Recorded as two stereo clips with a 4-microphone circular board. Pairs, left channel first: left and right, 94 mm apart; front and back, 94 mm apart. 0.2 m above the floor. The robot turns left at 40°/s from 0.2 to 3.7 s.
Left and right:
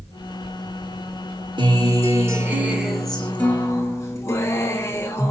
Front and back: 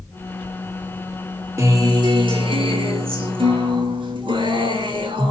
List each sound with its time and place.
1.6 s a guitar: 125° right, 0.8 m; by 5.3 s 150° left, 0.8 m